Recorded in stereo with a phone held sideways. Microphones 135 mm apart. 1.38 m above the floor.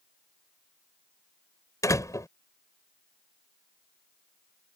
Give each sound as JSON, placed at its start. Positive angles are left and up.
{"t": 1.8, "sound": "a door slam", "side_deg": 25}